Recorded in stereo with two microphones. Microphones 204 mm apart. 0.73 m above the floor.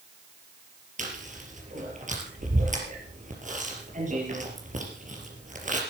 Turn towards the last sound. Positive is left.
turn(degrees=-40)  # may be behind; listen again after turning